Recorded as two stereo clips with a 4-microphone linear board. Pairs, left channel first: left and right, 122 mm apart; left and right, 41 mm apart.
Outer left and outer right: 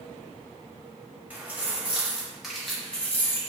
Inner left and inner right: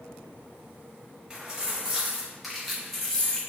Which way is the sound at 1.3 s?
15° right (ahead or behind).